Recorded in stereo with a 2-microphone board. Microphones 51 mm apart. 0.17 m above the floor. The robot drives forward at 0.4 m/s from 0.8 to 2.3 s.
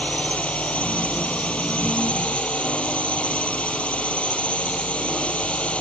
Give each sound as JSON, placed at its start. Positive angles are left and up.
{"t": 0.0, "sound": "a drone", "side_deg": 25}